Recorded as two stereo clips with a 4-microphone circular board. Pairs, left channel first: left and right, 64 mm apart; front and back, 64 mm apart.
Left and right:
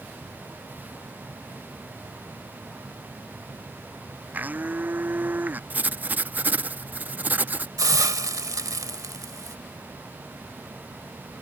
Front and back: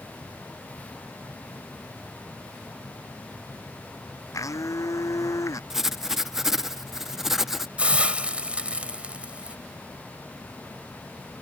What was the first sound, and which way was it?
A blender, 30° right.